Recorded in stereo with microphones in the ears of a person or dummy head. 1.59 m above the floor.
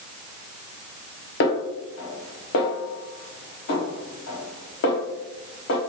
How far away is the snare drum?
About 0.8 m.